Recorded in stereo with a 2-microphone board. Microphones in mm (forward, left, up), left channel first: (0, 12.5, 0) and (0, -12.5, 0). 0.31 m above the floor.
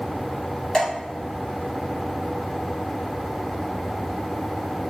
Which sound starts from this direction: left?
Dripping, at 0.7 s.